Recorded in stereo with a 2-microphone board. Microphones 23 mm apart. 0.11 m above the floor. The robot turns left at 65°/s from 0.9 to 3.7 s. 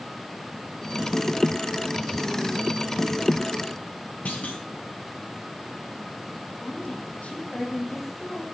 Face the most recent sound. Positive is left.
turn(degrees=70)  # may be behind; listen again after turning